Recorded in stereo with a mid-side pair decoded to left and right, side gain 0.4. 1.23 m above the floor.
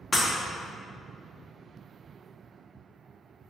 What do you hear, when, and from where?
0.1 s breaking glass: 30° left, 1.3 m